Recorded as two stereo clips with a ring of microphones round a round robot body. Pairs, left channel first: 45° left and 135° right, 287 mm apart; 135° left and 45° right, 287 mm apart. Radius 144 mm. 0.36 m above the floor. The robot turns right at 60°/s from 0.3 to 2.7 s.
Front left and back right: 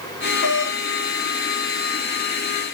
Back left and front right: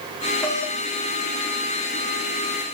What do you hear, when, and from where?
0.4 s a doorbell: 50° left, 4.5 m; by 2.7 s 170° right, 4.5 m